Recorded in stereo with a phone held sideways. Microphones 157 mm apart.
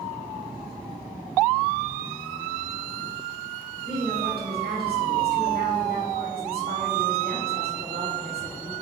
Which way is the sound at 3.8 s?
80° right.